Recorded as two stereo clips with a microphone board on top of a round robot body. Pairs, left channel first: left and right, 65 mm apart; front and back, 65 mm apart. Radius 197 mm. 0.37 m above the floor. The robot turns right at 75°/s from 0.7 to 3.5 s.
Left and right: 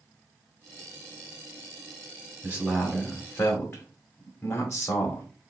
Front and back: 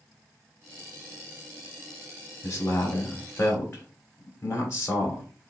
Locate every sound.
2.4 s a man speaking: 35° right, 1.9 m; by 5.3 s 45° left, 1.9 m